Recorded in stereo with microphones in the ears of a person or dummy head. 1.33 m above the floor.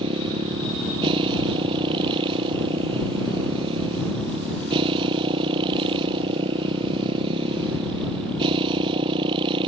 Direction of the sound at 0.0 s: 30° right (ahead or behind).